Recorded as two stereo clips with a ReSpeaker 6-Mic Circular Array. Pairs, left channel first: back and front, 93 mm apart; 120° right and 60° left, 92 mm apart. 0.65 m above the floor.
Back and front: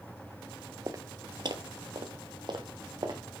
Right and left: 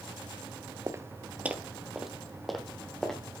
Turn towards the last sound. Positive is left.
turn(degrees=-35)